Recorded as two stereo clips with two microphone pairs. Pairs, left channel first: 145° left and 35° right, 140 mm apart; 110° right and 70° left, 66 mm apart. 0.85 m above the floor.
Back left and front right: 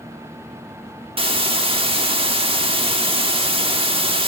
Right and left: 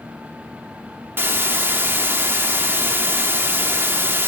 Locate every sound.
1.2 s a hiss: 10° left, 1.3 m